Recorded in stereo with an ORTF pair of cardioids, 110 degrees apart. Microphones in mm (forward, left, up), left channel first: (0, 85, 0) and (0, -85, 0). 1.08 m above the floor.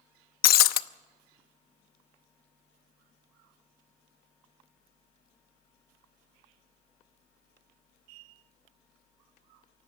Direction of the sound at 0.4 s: 70° left.